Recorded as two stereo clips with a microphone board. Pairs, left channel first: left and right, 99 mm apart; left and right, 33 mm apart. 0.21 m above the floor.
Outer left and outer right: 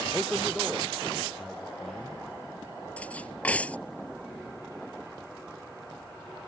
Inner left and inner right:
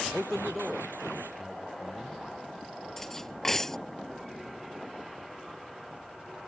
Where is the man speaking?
Centre (ahead or behind).